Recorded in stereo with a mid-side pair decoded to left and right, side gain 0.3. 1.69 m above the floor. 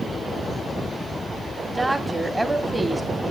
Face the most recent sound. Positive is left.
turn(degrees=-25)